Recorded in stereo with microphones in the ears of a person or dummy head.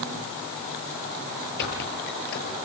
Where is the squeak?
60° left (ahead or behind), 8 m.